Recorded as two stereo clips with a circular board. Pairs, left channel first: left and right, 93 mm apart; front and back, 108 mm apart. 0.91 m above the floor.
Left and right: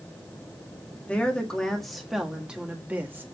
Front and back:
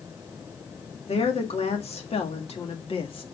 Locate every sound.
1.1 s a woman speaking: 15° left, 2 m; by 3.2 s 25° right, 1.7 m